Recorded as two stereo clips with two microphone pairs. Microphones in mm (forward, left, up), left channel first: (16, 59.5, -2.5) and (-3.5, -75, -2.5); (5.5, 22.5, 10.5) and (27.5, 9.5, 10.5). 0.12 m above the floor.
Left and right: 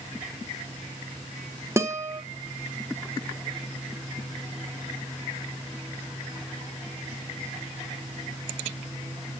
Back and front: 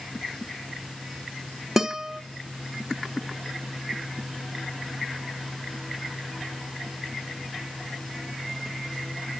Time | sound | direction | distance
1.8 | a guitar | 70° right | 1.3 m